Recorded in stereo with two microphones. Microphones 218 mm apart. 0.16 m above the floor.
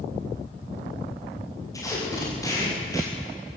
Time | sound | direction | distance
1.7 | tape being pulled | 15° left (ahead or behind) | 8 m